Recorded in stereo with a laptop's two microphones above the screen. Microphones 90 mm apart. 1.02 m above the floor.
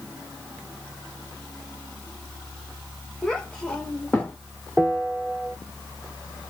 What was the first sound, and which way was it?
A child speaking, 5° left (ahead or behind).